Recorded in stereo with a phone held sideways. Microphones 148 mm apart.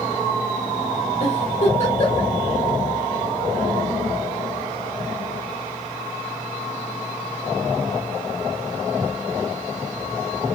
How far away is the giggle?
About 1.2 m.